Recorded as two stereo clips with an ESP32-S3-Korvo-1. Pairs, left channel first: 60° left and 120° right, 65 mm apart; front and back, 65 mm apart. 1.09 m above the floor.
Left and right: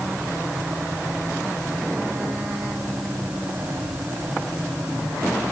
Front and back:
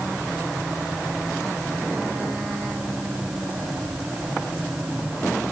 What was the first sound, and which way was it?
Only background noise.